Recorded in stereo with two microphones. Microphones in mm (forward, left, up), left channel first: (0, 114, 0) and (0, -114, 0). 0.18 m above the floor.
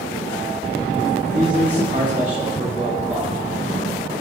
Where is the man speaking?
35° right (ahead or behind), 5.5 m; by 3.3 s 30° right (ahead or behind), 6.5 m.